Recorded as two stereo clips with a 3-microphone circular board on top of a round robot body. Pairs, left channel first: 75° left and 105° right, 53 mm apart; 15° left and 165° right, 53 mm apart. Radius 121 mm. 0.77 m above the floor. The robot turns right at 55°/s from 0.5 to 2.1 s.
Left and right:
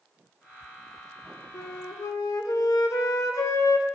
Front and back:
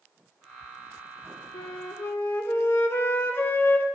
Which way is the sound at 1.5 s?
30° left.